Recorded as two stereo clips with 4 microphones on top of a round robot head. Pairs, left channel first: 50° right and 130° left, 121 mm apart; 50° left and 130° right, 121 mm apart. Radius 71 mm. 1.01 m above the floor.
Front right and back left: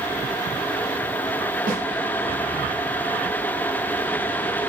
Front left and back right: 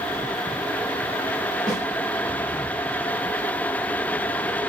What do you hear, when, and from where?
1.7 s a snare drum: 135° left, 1.5 m